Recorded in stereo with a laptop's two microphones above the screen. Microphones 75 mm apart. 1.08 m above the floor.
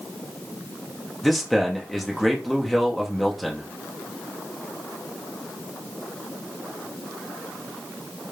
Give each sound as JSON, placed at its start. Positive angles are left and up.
{"t": 1.2, "sound": "a man speaking", "side_deg": 0, "distance_m": 0.9}